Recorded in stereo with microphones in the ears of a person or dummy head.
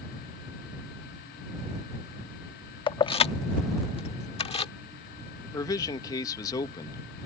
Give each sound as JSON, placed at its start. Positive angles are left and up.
{"t": 2.9, "sound": "keys jangling", "side_deg": 25}
{"t": 5.4, "sound": "a man speaking", "side_deg": 20}